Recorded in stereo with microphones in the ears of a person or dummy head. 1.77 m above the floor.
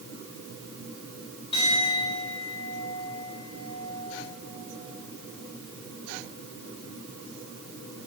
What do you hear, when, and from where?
1.5 s a clink: 30° left (ahead or behind), 3.5 m